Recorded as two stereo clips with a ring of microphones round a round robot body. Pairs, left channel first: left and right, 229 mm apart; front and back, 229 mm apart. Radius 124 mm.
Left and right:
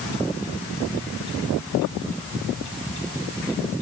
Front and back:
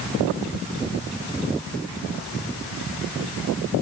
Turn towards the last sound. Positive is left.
No sound to turn to.